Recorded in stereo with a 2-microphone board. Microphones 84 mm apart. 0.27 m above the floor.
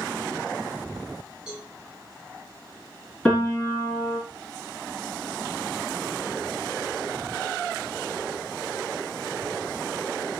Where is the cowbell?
10° right (ahead or behind), 2.5 m.